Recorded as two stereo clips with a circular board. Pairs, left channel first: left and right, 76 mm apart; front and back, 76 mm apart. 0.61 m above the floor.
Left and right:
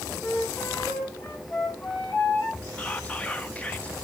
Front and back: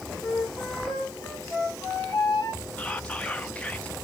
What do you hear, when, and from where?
0.2 s a flute: 30° left, 2.5 m
2.8 s whispering: 45° left, 0.6 m